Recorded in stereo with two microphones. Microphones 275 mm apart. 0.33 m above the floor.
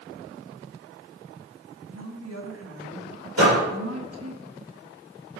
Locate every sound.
1.9 s a woman speaking: 60° right (ahead or behind), 3 m
3.4 s a door slam: 60° right (ahead or behind), 7 m